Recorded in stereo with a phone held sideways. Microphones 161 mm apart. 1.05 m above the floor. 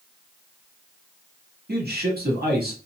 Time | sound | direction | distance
1.7 | a man speaking | 80° right | 1.7 m